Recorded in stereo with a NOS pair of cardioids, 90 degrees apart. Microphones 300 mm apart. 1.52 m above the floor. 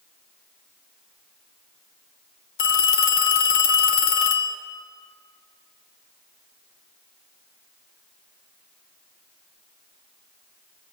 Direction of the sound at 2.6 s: 65° left.